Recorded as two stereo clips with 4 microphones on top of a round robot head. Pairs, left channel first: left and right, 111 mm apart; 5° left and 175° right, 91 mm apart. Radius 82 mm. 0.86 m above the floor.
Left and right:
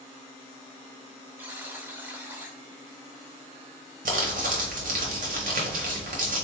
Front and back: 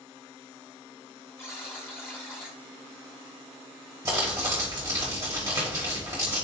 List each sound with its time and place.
1.4 s a buzzer: 40° right, 0.5 m
4.0 s crumpling: 110° right, 1.0 m